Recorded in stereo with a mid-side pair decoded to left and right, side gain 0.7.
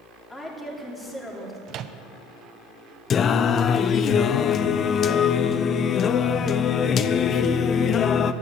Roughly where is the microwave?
Ahead right.